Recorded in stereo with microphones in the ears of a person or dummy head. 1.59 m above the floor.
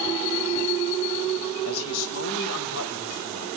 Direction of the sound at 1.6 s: 80° left.